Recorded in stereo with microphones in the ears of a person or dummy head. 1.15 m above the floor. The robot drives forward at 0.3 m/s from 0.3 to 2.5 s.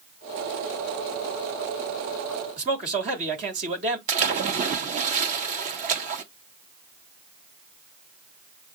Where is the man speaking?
35° right (ahead or behind), 1.3 m.